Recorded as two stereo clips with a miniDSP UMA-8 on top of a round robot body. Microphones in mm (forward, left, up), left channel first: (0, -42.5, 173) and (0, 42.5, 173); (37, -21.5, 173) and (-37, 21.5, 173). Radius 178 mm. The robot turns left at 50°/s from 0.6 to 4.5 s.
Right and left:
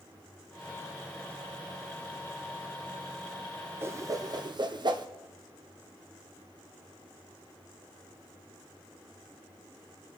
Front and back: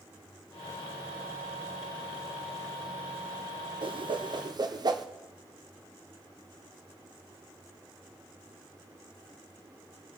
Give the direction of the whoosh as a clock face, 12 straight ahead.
7 o'clock.